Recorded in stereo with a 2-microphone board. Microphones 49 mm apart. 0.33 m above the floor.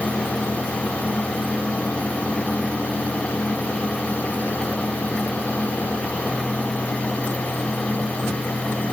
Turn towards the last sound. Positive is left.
No sound to turn to.